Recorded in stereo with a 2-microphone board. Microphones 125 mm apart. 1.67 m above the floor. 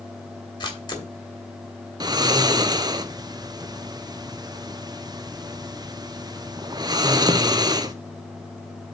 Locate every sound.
0.6 s a camera shutter: 35° left (ahead or behind), 1.5 m
2.0 s snoring: 35° right (ahead or behind), 0.5 m